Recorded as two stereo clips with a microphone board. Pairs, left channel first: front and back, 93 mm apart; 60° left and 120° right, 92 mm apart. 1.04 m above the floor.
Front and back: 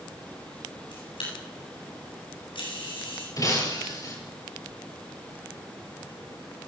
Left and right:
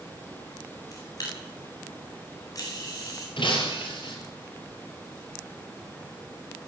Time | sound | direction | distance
0.9 | a camera shutter | 15° left | 8.5 m
3.4 | breaking glass | 45° left | 6.5 m